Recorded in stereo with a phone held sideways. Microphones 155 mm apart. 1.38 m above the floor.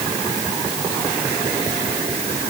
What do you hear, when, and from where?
Only background noise.